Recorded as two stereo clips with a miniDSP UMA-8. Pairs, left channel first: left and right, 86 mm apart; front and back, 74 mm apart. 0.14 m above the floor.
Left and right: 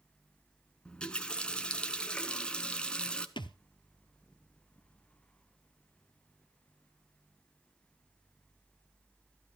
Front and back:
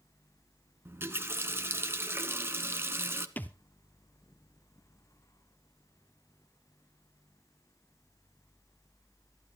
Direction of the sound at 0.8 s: 160° left.